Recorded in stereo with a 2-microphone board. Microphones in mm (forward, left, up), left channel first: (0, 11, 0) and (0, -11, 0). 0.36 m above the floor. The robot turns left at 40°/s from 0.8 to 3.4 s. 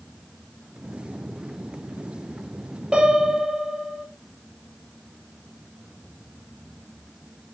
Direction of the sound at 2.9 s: 35° right (ahead or behind).